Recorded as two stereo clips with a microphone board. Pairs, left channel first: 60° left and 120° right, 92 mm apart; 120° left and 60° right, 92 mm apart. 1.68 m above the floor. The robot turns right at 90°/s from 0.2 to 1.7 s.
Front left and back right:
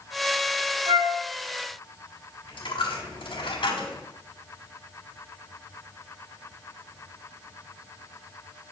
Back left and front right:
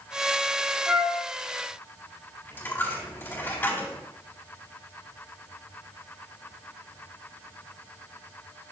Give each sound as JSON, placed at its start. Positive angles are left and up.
{"t": 0.9, "sound": "a flute", "azimuth_deg": -140, "distance_m": 3.5}
{"t": 2.5, "sound": "a dropped coin", "azimuth_deg": 55, "distance_m": 3.5}